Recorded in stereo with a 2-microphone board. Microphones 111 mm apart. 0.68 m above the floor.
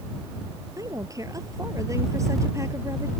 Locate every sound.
0.8 s a woman speaking: 30° right (ahead or behind); by 3.1 s 25° right (ahead or behind)